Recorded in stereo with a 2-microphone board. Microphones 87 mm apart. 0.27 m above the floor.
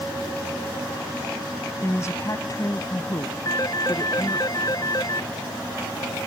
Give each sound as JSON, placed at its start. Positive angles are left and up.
{"t": 1.8, "sound": "a woman speaking", "side_deg": 30}
{"t": 3.5, "sound": "a phone ringing", "side_deg": 45}